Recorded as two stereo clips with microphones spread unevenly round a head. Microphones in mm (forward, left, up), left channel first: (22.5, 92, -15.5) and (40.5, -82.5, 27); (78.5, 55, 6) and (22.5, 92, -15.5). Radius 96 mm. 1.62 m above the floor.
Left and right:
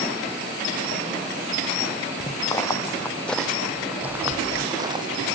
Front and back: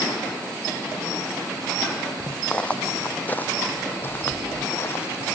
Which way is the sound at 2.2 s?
25° left.